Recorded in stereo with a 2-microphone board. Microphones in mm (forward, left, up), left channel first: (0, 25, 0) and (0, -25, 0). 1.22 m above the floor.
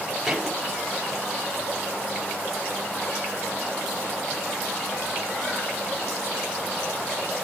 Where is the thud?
10° right (ahead or behind), 7.5 m.